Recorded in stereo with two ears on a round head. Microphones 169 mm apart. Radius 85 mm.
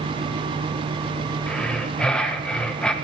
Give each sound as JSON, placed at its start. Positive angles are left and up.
{"t": 1.5, "sound": "breathing", "side_deg": 5, "distance_m": 1.2}